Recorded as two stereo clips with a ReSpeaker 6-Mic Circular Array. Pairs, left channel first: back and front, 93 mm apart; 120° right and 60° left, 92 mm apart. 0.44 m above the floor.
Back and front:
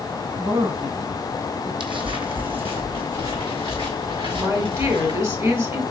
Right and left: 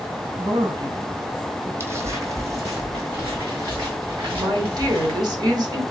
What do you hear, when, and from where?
0.4 s a woman speaking: 35° left, 1.7 m
1.8 s footsteps: straight ahead, 0.8 m; by 5.2 s 10° left, 3 m
4.3 s a woman speaking: 50° left, 1.2 m